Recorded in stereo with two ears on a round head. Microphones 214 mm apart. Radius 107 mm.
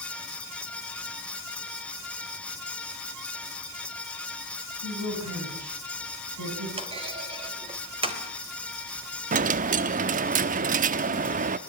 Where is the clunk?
25° right (ahead or behind), 3.5 m.